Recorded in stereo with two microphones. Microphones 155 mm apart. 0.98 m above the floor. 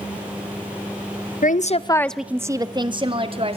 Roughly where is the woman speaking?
Left.